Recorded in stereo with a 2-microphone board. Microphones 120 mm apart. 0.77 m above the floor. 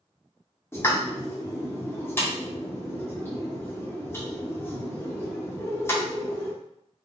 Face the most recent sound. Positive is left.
turn(degrees=20)  # may be behind; listen again after turning